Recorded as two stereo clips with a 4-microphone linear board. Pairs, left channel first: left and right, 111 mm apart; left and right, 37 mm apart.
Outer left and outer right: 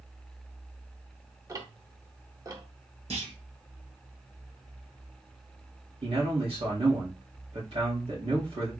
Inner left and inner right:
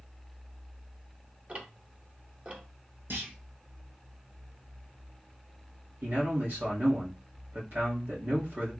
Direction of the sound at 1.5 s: 30° right (ahead or behind).